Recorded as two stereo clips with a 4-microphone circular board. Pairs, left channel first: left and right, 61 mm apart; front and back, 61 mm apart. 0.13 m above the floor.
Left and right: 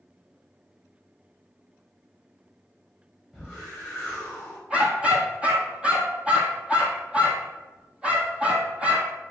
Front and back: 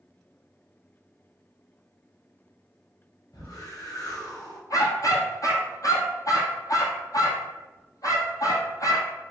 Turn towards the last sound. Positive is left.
turn(degrees=-20)